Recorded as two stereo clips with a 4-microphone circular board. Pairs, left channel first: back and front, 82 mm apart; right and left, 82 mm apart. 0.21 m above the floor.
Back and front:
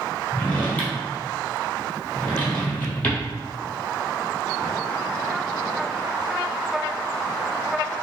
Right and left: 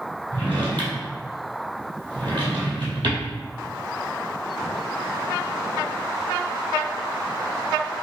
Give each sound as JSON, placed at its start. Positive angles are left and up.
{"t": 0.3, "sound": "a drawer", "azimuth_deg": 110, "distance_m": 1.9}